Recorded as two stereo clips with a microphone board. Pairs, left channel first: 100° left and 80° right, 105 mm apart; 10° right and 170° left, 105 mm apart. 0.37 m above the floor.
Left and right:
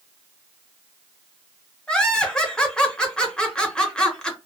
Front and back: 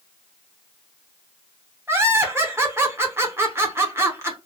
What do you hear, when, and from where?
1.9 s laughter: 165° left, 0.8 m